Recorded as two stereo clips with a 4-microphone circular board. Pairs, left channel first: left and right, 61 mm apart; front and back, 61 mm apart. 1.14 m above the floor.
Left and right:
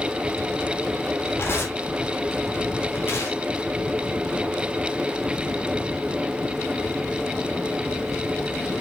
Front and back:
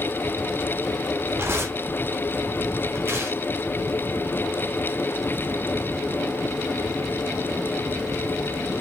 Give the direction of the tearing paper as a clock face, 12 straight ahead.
8 o'clock.